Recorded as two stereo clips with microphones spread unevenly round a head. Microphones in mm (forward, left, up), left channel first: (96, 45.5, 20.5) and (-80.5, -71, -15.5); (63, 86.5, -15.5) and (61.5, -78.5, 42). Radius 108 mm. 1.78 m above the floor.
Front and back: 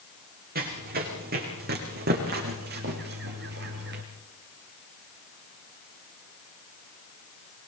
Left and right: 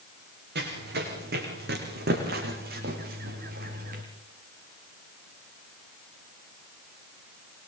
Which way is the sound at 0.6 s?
95° right.